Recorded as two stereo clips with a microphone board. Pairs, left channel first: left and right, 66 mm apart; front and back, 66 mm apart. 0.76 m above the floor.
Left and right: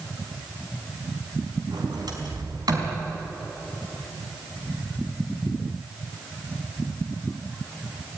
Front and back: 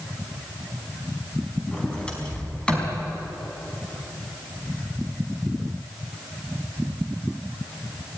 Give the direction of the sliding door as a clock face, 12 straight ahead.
3 o'clock.